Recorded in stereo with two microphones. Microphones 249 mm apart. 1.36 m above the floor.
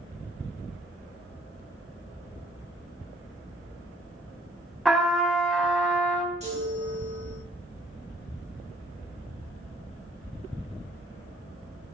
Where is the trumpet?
Centre (ahead or behind), 0.9 m.